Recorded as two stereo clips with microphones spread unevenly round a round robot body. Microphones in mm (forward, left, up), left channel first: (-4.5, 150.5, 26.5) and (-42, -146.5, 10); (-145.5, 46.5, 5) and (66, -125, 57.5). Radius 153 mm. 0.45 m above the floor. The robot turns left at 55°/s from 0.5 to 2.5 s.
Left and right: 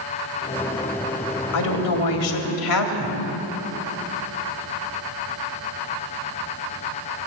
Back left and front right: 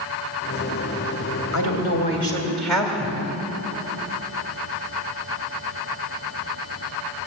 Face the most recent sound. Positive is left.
turn(degrees=55)